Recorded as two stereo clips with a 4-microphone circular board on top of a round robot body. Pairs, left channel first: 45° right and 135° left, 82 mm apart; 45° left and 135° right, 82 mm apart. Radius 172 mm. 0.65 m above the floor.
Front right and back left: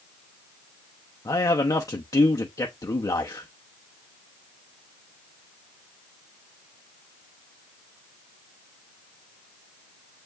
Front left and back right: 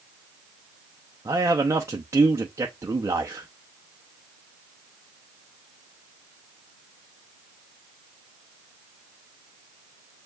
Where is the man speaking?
85° right, 0.9 m.